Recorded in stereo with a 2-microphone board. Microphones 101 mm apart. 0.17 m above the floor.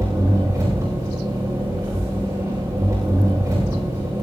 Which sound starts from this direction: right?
An engine running, at 0.0 s.